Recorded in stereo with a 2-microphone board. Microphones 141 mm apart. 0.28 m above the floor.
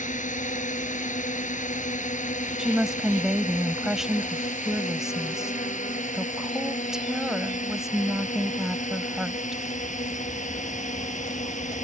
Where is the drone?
60° left (ahead or behind).